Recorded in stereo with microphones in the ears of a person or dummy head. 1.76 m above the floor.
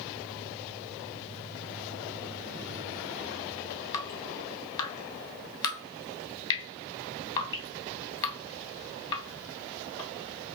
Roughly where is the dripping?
Left.